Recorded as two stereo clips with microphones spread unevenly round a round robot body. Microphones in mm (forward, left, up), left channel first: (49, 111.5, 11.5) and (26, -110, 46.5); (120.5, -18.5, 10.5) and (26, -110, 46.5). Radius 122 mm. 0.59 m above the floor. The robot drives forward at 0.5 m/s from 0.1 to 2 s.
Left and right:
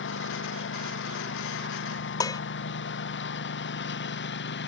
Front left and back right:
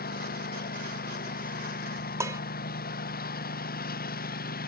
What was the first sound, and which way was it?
A lawn mower, 45° left.